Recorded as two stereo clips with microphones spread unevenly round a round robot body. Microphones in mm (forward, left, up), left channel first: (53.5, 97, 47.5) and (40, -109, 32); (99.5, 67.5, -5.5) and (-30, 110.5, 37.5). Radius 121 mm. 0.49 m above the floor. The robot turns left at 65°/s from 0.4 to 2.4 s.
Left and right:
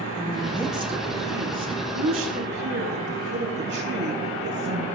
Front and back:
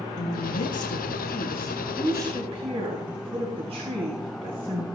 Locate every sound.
0.2 s a woman speaking: straight ahead, 3.5 m; by 4.8 s 130° right, 3.5 m